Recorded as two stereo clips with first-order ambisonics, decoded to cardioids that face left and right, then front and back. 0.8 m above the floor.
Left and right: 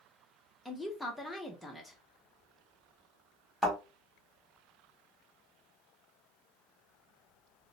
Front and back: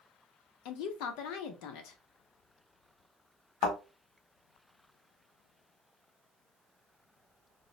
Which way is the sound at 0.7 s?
5° left.